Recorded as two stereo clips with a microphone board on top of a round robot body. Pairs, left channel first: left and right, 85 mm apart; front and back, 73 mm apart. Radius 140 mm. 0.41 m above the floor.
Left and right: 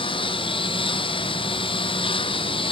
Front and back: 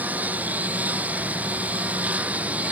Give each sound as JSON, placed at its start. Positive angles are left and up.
{"t": 0.0, "sound": "a lawn mower", "azimuth_deg": 110}